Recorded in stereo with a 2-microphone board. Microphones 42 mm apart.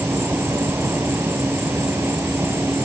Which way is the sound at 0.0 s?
65° right (ahead or behind).